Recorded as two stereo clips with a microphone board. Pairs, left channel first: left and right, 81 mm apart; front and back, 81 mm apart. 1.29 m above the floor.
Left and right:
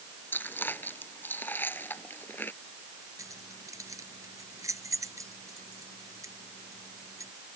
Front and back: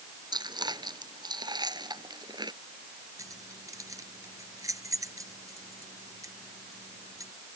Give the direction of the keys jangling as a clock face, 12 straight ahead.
5 o'clock.